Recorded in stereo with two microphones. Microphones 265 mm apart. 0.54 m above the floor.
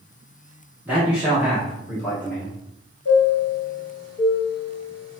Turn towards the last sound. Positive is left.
turn(degrees=65)  # may be behind; listen again after turning